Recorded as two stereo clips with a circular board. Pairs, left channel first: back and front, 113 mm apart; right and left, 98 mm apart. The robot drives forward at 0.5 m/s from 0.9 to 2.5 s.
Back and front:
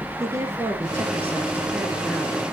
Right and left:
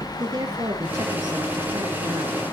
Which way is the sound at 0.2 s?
60° left.